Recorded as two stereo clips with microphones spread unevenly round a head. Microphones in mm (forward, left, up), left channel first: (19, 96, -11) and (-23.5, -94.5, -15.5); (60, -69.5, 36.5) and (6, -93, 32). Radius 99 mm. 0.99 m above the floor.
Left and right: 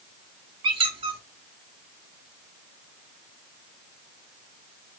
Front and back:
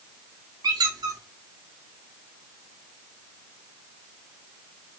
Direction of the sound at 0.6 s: 170° right.